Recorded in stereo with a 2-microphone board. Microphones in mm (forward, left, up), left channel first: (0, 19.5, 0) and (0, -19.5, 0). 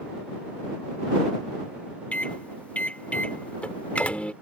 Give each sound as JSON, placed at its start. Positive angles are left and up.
{"t": 2.1, "sound": "a microwave", "side_deg": 35}